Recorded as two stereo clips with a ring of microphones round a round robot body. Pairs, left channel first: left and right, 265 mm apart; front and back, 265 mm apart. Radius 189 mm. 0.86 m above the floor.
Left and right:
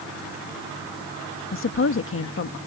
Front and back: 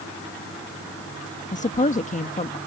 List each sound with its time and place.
1.5 s a woman speaking: 60° left